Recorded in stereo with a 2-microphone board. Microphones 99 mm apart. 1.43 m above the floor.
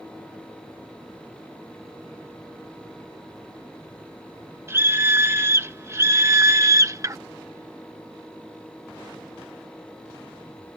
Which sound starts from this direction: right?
A scream, at 4.7 s.